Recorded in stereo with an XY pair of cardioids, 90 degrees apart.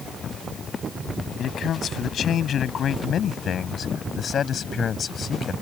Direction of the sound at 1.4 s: 70° left.